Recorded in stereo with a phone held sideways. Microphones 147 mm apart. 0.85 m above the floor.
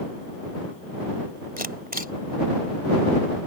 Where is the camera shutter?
90° right.